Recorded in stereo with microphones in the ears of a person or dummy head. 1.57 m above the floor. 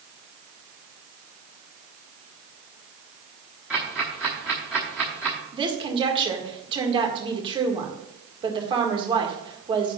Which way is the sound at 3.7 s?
5° right (ahead or behind).